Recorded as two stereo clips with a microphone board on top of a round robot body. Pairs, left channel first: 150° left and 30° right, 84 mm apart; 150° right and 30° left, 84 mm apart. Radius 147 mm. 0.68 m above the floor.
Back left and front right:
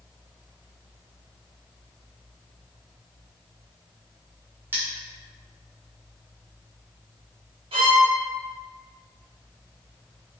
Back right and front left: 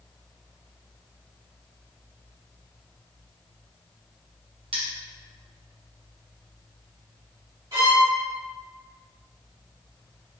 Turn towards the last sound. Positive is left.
turn(degrees=-20)